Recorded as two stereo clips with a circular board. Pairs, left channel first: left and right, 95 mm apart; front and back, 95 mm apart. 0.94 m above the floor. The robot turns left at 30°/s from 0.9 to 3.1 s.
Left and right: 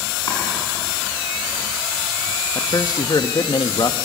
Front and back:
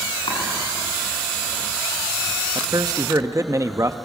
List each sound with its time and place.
0.3 s chopping: 40° left, 7.5 m
2.5 s a man speaking: 145° left, 1.0 m; by 4.0 s 125° left, 1.0 m